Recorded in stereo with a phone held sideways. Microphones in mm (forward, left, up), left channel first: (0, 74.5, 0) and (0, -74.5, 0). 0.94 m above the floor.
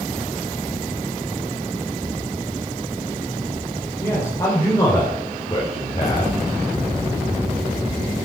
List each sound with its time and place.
4.0 s a man speaking: 20° left (ahead or behind), 4 m; by 6.4 s 40° left (ahead or behind), 3 m